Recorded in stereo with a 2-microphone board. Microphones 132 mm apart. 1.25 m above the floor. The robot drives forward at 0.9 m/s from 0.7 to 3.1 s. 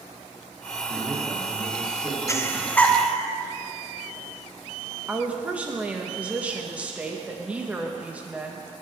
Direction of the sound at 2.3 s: 20° left (ahead or behind).